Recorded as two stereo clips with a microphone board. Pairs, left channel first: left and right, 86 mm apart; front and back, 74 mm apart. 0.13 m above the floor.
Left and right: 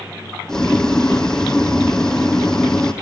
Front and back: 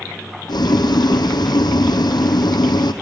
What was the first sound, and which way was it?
Boiling, 5° left.